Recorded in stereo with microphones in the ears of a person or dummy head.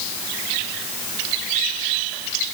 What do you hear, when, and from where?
Only background noise.